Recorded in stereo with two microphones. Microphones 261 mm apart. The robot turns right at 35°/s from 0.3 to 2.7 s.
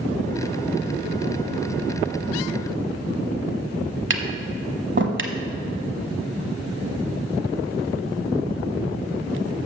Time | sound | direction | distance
4.1 | tapping | 50° right (ahead or behind) | 0.8 m